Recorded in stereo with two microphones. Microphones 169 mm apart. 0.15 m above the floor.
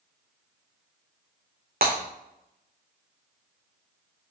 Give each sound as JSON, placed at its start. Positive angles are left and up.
{"t": 1.8, "sound": "breaking glass", "side_deg": -70, "distance_m": 2.0}